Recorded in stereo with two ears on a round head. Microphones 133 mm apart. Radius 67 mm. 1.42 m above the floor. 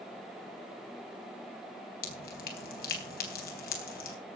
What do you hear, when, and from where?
2.0 s dripping: 70° left (ahead or behind), 3.5 m